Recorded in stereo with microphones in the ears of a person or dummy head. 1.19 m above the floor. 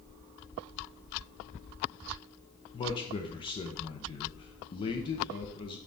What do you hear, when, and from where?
2.7 s a man speaking: 30° left (ahead or behind), 0.5 m